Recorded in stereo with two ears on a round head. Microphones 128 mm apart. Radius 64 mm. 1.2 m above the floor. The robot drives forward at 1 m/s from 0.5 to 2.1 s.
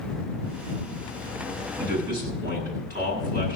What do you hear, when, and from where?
1.8 s a man speaking: 70° right (ahead or behind), 9 m